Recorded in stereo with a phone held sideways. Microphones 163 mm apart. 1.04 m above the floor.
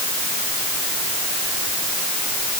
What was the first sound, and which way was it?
Only background noise.